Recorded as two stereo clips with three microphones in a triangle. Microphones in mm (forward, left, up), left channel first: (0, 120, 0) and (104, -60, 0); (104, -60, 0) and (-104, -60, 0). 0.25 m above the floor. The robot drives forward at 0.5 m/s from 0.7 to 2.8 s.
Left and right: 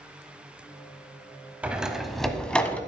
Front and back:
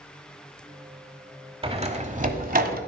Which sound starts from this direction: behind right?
A door slam, at 1.6 s.